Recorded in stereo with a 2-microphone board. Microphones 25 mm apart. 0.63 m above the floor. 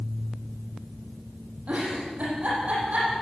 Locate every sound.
1.7 s a giggle: 55° right (ahead or behind), 8.5 m